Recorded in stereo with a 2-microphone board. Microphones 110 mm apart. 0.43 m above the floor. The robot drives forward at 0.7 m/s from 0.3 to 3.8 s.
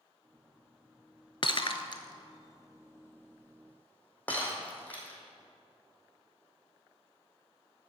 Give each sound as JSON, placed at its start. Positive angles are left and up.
{"t": 1.4, "sound": "breaking glass", "side_deg": 50, "distance_m": 0.5}